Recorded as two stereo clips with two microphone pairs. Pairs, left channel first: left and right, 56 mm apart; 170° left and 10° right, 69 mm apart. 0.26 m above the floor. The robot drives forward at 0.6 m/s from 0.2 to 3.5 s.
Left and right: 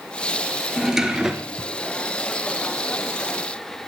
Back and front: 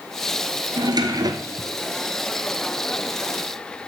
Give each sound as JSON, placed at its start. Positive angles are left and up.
{"t": 0.8, "sound": "a drawer", "azimuth_deg": -10, "distance_m": 1.4}